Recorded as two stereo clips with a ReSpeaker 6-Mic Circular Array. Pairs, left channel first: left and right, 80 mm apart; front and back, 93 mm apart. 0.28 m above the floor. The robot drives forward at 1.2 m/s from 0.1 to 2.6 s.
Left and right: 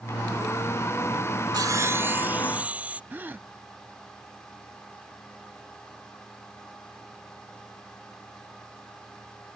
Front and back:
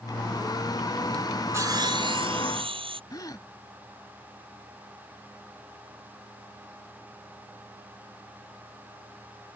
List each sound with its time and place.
1.5 s sawing: 120° right; by 3.0 s 160° right
3.1 s a gasp: 30° right